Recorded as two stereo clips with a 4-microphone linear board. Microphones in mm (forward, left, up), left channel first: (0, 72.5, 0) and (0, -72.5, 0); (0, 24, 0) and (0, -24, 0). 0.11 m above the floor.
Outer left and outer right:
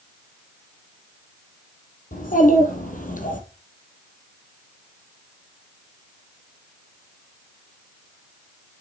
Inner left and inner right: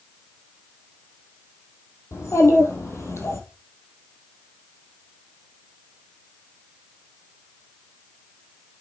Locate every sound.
2.1 s a child speaking: 70° left (ahead or behind), 3 m; by 3.4 s 65° left (ahead or behind), 2.5 m